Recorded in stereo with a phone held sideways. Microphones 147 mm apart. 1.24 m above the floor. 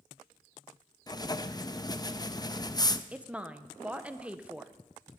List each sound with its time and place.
1.1 s writing: 25° left (ahead or behind), 0.5 m
3.1 s a woman speaking: 10° right (ahead or behind), 0.9 m